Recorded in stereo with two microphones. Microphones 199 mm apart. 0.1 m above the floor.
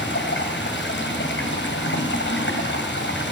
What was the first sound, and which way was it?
Running water, 70° left (ahead or behind).